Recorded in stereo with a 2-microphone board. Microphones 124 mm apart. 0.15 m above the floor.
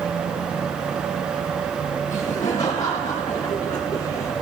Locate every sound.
2.1 s laughter: 30° left (ahead or behind), 3 m; by 4.3 s 25° left (ahead or behind), 1.3 m